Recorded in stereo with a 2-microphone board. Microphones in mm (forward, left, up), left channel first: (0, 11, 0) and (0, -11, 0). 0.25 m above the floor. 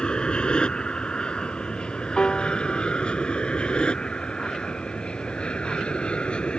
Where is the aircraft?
40° left (ahead or behind); by 6.6 s 45° left (ahead or behind).